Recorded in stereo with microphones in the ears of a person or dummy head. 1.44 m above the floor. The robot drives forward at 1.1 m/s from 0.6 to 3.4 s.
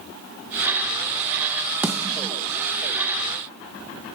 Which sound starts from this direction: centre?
A snare drum, at 1.8 s.